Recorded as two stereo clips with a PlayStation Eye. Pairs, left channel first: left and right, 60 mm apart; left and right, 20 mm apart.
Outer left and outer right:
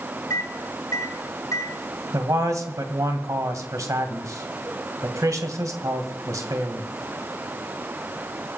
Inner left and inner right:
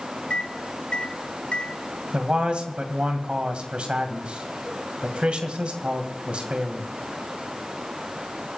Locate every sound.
0.3 s a microwave: 65° left (ahead or behind), 2 m
2.1 s a man speaking: 60° right (ahead or behind), 2 m